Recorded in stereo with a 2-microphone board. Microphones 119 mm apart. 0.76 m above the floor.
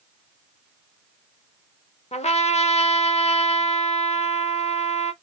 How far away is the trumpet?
About 0.8 m.